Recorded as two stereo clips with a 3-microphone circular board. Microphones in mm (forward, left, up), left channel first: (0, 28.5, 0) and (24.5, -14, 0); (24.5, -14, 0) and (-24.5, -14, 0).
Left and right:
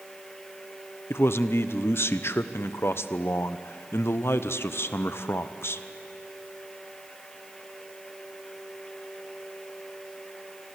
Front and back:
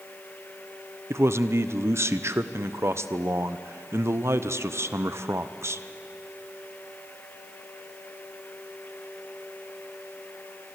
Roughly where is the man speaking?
Behind left.